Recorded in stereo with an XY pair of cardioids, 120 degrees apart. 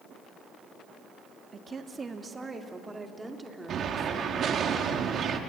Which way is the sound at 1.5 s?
35° right.